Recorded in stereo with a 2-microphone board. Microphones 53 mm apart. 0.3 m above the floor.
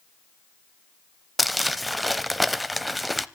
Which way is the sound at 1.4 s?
Centre (ahead or behind).